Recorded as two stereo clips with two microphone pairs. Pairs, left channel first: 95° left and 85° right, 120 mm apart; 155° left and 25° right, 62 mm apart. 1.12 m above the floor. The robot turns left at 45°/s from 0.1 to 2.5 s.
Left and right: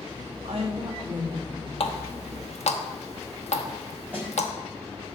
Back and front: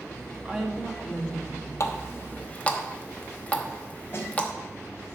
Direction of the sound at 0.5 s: 100° right.